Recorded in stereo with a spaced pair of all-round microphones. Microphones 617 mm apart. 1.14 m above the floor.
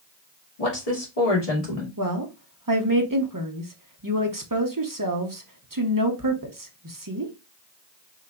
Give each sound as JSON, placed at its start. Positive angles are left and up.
{"t": 0.6, "sound": "a woman speaking", "side_deg": 75, "distance_m": 2.0}
{"t": 2.0, "sound": "a woman speaking", "side_deg": -30, "distance_m": 1.0}